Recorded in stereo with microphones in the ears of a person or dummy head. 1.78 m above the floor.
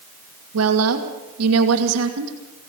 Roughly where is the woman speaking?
Right.